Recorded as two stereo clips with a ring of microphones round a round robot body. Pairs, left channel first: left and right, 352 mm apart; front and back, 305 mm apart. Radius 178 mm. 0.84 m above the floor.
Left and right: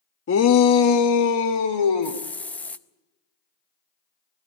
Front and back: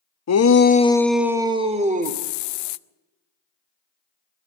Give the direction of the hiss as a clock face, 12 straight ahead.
12 o'clock.